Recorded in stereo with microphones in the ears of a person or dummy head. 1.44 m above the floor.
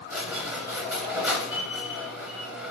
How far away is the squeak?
About 0.8 m.